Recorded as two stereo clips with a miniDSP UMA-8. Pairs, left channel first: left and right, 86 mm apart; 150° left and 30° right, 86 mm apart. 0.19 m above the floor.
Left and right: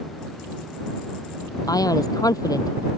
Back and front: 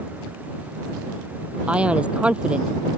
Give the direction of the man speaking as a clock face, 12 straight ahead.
10 o'clock.